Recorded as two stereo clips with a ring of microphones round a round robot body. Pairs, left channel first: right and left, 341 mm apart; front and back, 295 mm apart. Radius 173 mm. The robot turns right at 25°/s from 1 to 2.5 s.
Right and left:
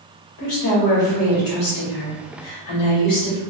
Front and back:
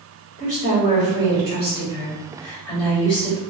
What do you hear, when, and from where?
0.4 s a woman speaking: 115° right, 1.6 m; by 3.4 s 75° right, 1.6 m